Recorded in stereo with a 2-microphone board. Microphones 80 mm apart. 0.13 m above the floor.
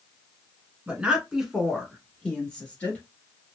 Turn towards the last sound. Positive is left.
turn(degrees=20)  # may be behind; listen again after turning